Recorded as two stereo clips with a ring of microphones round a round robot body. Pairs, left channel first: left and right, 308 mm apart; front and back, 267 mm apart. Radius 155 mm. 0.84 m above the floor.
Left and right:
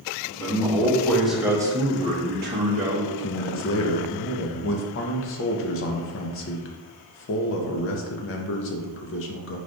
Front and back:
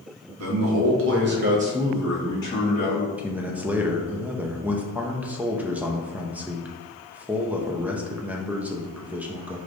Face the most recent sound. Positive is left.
turn(degrees=100)